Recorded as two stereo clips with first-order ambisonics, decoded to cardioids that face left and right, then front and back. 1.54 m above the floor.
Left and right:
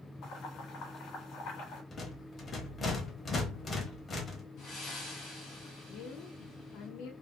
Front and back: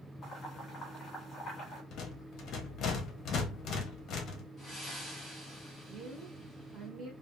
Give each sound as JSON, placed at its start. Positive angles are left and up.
{"t": 0.2, "sound": "boiling", "azimuth_deg": 60, "distance_m": 1.3}
{"t": 1.9, "sound": "a rattle", "azimuth_deg": 25, "distance_m": 0.7}
{"t": 4.6, "sound": "breathing", "azimuth_deg": 75, "distance_m": 1.6}
{"t": 5.9, "sound": "a woman speaking", "azimuth_deg": 110, "distance_m": 0.9}